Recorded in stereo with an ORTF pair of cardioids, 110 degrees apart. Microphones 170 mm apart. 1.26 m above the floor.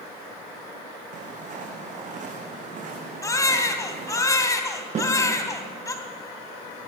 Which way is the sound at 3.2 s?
20° left.